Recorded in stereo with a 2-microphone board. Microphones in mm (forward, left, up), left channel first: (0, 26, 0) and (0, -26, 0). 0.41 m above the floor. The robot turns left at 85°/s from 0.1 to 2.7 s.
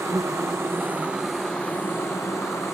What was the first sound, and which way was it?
An insect, 75° right.